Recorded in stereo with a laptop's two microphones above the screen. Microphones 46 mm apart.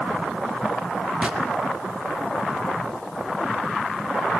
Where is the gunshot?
20° right (ahead or behind), 2 m.